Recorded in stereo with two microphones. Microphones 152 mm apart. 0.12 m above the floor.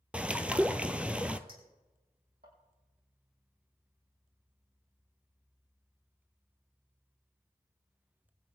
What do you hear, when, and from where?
0.1 s a bird: 10° right (ahead or behind), 0.7 m
1.5 s a clink: 75° right (ahead or behind), 4 m